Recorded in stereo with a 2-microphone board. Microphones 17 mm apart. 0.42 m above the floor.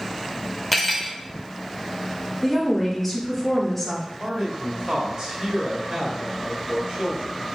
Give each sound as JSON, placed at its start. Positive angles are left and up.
{"t": 0.7, "sound": "cutlery clinking", "side_deg": 5, "distance_m": 0.7}
{"t": 2.4, "sound": "a woman speaking", "side_deg": 10, "distance_m": 1.1}
{"t": 4.2, "sound": "a man speaking", "side_deg": -50, "distance_m": 1.2}